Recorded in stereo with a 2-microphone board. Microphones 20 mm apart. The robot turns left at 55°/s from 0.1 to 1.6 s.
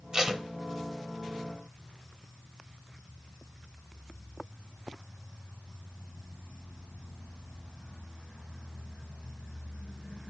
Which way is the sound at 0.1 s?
30° right (ahead or behind).